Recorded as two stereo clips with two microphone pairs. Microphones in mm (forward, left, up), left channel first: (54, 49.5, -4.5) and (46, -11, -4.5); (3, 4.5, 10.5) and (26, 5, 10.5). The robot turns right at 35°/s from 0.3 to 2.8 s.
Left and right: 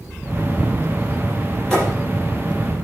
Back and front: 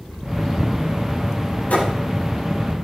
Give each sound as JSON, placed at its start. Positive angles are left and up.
{"t": 1.7, "sound": "a thud", "azimuth_deg": 160, "distance_m": 6.5}